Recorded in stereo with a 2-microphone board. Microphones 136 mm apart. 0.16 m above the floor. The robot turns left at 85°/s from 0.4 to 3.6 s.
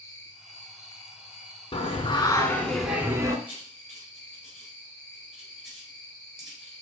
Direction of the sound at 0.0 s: 80° right.